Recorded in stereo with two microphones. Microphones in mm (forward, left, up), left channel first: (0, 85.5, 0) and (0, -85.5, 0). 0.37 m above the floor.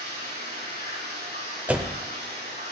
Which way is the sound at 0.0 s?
75° right (ahead or behind).